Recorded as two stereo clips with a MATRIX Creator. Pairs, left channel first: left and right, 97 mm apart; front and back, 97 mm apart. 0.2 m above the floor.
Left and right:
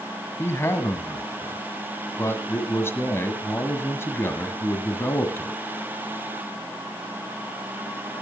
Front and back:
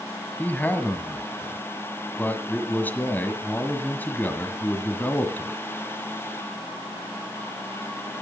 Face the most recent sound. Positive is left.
turn(degrees=55)